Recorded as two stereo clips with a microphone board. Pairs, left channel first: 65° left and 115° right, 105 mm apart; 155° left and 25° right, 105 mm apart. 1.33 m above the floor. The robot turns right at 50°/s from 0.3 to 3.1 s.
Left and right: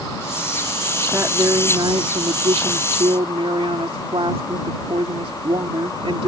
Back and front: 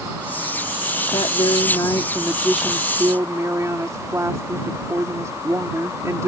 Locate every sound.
1.1 s a woman speaking: straight behind; by 6.3 s 85° right